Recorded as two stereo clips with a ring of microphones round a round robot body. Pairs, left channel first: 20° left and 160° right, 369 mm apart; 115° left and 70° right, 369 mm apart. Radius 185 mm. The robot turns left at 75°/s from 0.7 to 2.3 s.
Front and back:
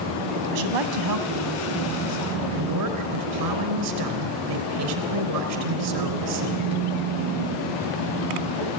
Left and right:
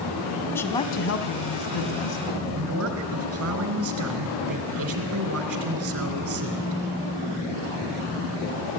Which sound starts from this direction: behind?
A woman speaking, at 0.5 s.